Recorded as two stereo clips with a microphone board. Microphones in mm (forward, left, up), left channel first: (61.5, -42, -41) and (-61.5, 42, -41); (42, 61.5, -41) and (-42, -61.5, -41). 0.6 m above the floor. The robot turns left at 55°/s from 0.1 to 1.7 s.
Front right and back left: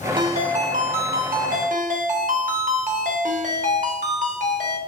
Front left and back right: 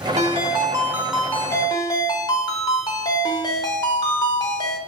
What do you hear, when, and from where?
0.2 s a ringtone: 160° right, 0.8 m; by 4.8 s 115° left, 0.8 m